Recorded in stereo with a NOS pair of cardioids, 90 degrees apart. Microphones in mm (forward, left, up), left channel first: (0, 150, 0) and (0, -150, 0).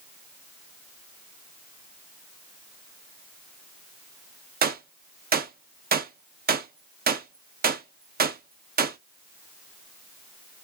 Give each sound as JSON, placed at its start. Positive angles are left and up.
{"t": 4.6, "sound": "a gunshot", "azimuth_deg": -30, "distance_m": 0.9}